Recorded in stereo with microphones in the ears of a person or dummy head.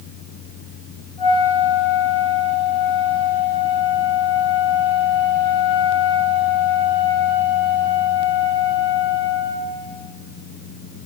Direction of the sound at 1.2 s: 30° left (ahead or behind).